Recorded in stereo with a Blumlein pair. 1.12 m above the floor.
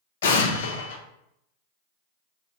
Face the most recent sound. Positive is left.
turn(degrees=60)